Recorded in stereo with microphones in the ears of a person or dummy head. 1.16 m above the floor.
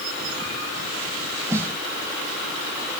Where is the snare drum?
15° right (ahead or behind).